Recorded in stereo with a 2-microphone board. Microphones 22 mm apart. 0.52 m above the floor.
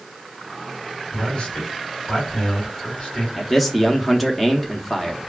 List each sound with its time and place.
1.1 s a man speaking: 45° left (ahead or behind), 1.7 m
3.4 s a man speaking: 5° left (ahead or behind), 0.7 m